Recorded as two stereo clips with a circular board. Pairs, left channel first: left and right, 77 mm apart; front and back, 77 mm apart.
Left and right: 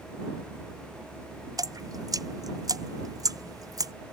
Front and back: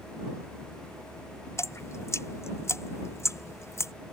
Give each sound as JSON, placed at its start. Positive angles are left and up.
{"t": 1.6, "sound": "dripping", "azimuth_deg": -50}